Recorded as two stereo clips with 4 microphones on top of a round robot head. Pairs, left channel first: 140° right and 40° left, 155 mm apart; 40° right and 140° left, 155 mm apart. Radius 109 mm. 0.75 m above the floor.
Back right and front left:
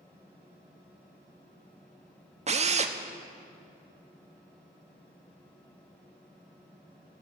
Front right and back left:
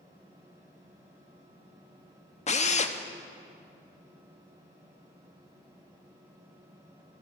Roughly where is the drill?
Ahead.